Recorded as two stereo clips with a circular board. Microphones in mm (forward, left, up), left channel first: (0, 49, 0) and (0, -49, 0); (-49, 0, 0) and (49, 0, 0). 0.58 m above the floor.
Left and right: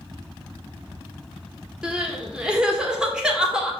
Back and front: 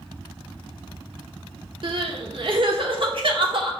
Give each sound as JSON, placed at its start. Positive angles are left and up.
{"t": 1.8, "sound": "crying", "azimuth_deg": -10, "distance_m": 1.3}